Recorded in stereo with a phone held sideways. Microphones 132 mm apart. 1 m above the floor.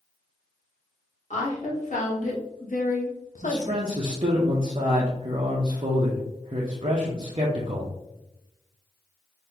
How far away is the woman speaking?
About 1.9 m.